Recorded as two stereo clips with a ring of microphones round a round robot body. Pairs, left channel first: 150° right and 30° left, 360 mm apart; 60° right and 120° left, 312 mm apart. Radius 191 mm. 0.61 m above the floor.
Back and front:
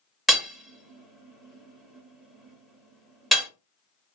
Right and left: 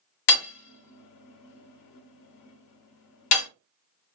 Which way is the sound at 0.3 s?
60° right.